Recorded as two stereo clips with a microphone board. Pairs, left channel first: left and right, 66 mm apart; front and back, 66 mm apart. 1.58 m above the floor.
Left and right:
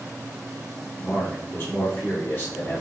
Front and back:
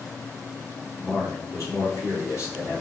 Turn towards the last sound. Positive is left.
turn(degrees=35)